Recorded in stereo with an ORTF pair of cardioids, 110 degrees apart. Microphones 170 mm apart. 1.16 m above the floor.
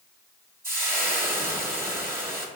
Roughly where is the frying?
Ahead.